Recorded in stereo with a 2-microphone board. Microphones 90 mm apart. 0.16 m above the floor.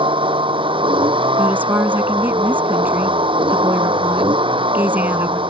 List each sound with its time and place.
0.0 s a vehicle: 75° right (ahead or behind)
1.4 s a woman speaking: 20° right (ahead or behind)